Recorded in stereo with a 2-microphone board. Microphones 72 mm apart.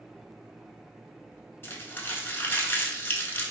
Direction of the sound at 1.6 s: 30° left (ahead or behind).